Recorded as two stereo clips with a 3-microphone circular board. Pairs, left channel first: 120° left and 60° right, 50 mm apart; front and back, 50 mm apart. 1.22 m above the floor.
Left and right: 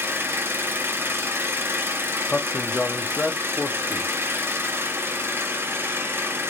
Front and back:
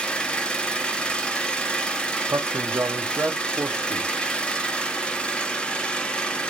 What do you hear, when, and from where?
0.0 s an engine running: 65° right, 0.8 m
2.3 s a man speaking: straight behind, 0.9 m